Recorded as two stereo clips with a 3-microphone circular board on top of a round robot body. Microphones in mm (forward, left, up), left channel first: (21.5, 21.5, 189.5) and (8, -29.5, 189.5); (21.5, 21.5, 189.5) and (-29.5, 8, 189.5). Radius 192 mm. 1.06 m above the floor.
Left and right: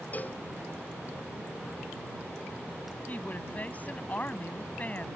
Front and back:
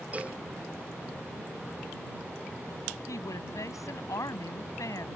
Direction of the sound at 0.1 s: 135° left.